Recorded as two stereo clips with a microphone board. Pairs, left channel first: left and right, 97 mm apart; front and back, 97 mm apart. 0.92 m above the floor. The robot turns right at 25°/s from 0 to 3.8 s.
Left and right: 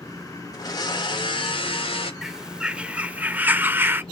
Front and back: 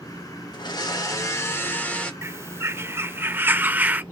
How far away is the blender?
About 2 m.